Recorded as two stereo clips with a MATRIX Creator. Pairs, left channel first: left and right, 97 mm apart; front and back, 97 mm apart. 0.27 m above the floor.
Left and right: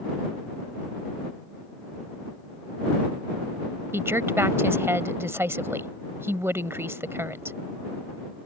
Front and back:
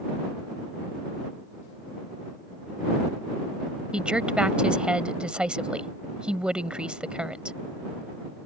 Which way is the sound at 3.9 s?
110° right.